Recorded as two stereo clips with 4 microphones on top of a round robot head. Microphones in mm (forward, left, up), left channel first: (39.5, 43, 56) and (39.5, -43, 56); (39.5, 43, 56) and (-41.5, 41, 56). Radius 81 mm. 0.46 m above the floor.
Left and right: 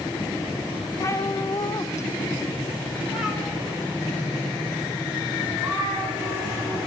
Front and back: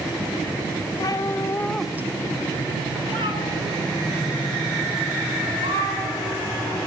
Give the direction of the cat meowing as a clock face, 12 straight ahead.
11 o'clock.